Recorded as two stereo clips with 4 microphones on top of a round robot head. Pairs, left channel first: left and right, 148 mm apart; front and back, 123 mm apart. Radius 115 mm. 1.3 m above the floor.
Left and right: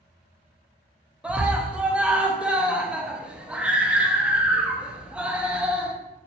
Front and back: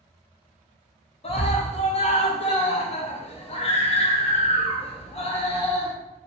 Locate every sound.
1.2 s a scream: 10° right, 0.7 m